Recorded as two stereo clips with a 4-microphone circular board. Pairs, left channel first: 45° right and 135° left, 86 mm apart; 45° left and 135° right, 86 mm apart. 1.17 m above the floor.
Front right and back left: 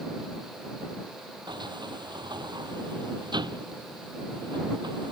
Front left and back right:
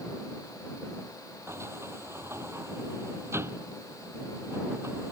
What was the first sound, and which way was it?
A sliding door, 165° left.